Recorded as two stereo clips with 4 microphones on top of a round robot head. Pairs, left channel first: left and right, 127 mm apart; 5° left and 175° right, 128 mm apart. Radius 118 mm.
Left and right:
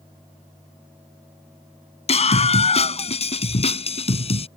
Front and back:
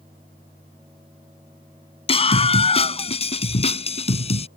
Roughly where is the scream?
Ahead left.